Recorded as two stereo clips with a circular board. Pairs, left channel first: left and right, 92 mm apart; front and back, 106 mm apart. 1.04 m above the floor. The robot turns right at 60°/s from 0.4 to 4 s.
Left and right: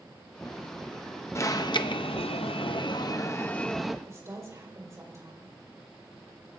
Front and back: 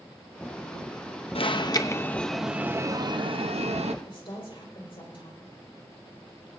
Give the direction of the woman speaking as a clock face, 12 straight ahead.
1 o'clock.